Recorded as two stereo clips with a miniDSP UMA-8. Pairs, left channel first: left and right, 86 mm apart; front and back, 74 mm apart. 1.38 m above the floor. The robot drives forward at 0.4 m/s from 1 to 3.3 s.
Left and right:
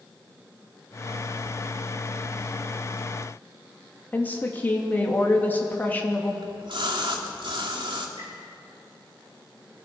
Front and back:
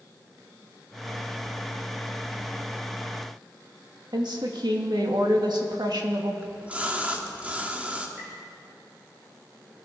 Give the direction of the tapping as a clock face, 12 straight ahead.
4 o'clock.